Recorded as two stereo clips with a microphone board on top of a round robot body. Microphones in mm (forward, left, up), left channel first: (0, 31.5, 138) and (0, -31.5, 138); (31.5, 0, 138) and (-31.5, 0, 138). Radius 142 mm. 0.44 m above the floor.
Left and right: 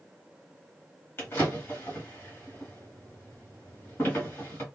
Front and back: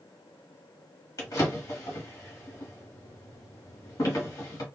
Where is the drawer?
35° left, 1.7 m.